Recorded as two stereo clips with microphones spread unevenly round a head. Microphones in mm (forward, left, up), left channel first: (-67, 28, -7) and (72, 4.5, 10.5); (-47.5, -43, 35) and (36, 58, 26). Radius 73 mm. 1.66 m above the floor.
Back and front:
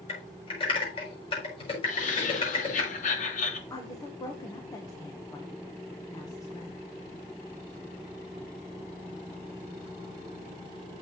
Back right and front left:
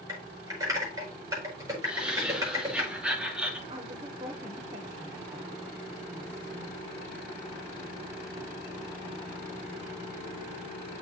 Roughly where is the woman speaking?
Left.